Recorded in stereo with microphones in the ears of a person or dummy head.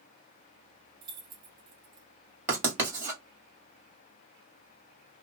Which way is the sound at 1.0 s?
25° right (ahead or behind).